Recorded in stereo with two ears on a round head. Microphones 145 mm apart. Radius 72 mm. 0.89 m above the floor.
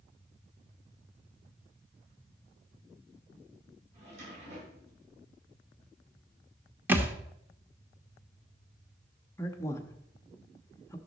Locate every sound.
3.9 s a drawer: 45° right (ahead or behind), 6 m
6.9 s a thud: 10° right (ahead or behind), 1.0 m
9.4 s a man speaking: 20° left (ahead or behind), 1.0 m